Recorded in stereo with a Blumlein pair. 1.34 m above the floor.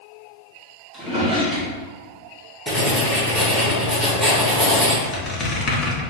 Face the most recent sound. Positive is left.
turn(degrees=25)